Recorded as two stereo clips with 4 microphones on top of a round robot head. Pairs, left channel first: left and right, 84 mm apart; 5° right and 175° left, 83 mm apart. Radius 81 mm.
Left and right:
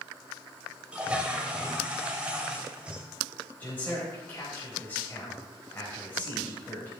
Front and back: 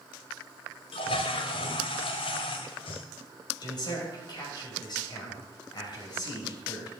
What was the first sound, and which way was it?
A toilet flushing, 10° right.